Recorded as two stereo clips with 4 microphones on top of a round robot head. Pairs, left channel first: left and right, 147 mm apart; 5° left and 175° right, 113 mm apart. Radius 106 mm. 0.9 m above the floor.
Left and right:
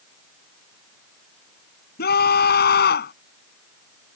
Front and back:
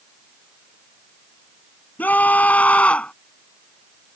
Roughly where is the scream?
Left.